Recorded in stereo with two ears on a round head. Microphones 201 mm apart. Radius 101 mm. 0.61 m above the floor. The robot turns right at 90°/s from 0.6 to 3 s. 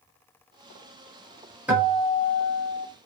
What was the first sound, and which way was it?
A guitar, 10° right.